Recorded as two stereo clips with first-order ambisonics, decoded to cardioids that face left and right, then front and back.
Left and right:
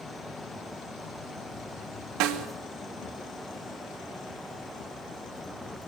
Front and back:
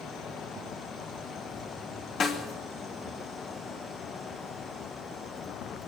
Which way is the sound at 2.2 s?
60° right.